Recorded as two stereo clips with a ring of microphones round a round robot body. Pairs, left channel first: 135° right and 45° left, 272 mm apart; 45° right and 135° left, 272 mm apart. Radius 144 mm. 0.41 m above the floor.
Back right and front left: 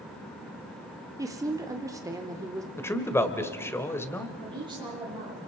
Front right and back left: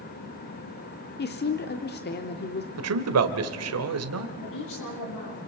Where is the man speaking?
145° left, 1.8 m.